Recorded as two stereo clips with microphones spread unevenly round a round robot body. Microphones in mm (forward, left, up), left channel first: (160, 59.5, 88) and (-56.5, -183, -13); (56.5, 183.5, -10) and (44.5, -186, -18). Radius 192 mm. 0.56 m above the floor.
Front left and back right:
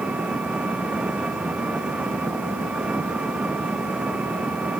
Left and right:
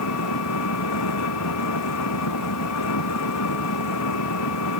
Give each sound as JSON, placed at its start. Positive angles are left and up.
{"t": 0.0, "sound": "an engine running", "azimuth_deg": 140}